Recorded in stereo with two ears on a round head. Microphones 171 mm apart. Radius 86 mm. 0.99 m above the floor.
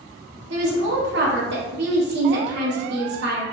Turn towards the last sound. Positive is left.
turn(degrees=-60)  # may be behind; listen again after turning